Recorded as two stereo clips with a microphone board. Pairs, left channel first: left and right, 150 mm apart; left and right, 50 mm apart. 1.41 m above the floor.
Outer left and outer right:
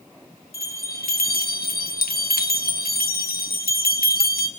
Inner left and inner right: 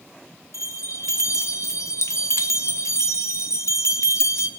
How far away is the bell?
About 1.5 m.